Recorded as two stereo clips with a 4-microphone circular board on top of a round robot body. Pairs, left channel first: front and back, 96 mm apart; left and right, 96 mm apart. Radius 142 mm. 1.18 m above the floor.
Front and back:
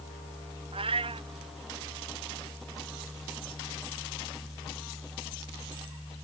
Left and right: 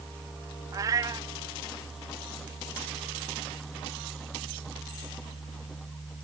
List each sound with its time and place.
0.7 s a cat meowing: 145° right